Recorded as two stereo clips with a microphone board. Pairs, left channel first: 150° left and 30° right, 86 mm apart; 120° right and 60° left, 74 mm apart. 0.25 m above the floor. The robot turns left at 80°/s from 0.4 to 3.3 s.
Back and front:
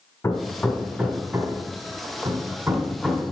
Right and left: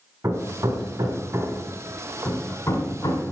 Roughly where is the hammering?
Left.